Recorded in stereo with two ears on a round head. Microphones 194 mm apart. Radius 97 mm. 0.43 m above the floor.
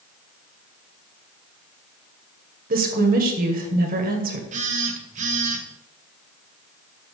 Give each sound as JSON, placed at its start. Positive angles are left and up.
{"t": 2.7, "sound": "a woman speaking", "side_deg": -40, "distance_m": 2.0}
{"t": 4.5, "sound": "a phone buzzing", "side_deg": -35, "distance_m": 1.5}